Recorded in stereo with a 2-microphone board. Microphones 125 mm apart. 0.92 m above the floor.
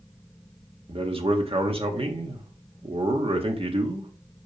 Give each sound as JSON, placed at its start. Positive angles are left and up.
{"t": 0.9, "sound": "a man speaking", "side_deg": -45, "distance_m": 1.7}